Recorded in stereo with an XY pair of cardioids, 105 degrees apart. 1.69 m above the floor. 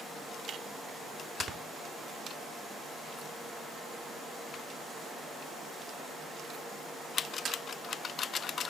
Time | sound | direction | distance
1.4 | snoring | 55° right | 3 m